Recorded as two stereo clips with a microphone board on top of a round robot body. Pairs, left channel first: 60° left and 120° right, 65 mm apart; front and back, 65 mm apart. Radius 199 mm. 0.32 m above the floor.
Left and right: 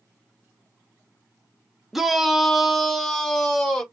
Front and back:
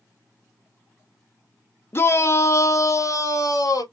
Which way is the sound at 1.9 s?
35° right.